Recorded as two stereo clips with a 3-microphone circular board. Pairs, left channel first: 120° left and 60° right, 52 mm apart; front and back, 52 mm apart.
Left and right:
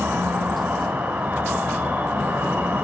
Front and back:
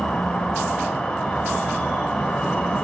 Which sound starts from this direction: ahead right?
An insect, at 0.0 s.